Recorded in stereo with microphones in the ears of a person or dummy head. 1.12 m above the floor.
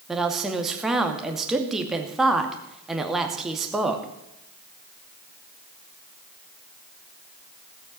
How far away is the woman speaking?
About 2 m.